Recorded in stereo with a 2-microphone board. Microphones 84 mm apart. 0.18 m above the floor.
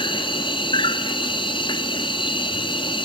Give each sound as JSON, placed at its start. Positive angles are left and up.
{"t": 0.0, "sound": "an insect", "side_deg": 75, "distance_m": 0.8}